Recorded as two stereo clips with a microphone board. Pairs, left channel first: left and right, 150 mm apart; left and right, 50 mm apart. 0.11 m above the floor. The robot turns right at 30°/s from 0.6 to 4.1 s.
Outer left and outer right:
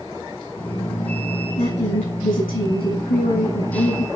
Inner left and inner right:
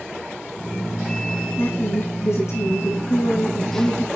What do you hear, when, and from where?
1.6 s a woman speaking: 45° left, 6 m; by 4.1 s 120° left, 6 m